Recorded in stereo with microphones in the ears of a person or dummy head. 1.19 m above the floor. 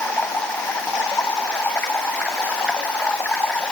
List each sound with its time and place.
0.0 s running water: 10° left (ahead or behind)